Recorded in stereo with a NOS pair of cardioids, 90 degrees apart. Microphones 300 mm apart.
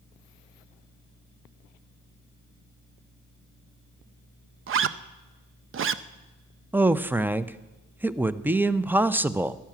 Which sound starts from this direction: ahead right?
A zipper, at 4.7 s.